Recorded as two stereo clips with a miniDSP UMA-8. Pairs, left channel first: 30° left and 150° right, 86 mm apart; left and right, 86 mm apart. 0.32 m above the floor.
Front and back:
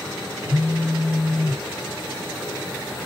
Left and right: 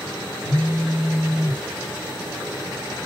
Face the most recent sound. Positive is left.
turn(degrees=100)